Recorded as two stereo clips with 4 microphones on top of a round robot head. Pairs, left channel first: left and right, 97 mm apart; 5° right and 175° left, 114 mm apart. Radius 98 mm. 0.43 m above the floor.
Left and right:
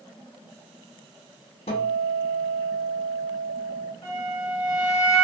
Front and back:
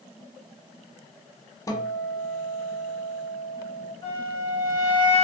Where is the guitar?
60° left, 0.6 m.